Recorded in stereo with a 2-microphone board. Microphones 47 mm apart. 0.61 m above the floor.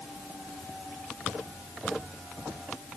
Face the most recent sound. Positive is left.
No sound to turn to.